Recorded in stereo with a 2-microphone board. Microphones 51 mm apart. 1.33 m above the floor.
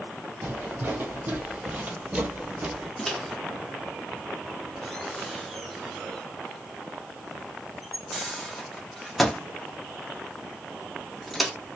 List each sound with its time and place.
0.4 s footsteps: 40° right (ahead or behind), 2 m; by 2.9 s 15° right (ahead or behind), 1.3 m
3.0 s a microwave: centre (ahead or behind), 0.9 m